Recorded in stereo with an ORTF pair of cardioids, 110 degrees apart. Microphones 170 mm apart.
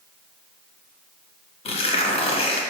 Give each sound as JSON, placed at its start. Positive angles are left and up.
{"t": 1.6, "sound": "tearing paper", "azimuth_deg": 35, "distance_m": 0.7}